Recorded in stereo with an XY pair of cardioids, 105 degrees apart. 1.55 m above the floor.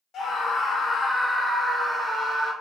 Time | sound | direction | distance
0.1 | a scream | 55° left | 1.1 m